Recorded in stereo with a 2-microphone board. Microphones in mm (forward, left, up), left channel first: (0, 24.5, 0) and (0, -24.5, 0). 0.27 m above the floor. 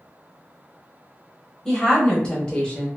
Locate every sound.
1.6 s a woman speaking: 10° left (ahead or behind), 1.0 m; by 2.9 s 20° left (ahead or behind), 1.2 m